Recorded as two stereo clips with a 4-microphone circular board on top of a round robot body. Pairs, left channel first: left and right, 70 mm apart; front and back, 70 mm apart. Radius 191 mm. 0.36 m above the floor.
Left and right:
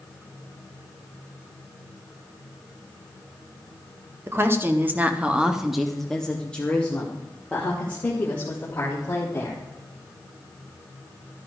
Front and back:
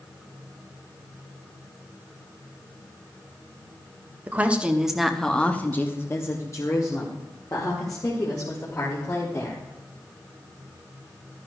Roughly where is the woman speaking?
Behind right.